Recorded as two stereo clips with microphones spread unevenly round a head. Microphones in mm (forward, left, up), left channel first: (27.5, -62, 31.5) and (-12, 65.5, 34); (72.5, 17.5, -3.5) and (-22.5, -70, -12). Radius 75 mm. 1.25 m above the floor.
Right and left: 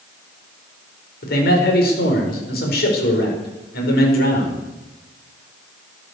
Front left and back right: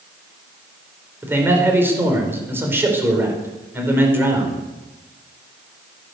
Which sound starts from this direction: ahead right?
A man speaking, at 1.2 s.